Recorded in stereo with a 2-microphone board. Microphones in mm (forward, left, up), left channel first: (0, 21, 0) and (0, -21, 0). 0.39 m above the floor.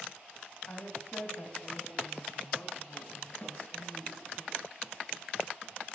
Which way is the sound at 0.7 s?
65° left (ahead or behind).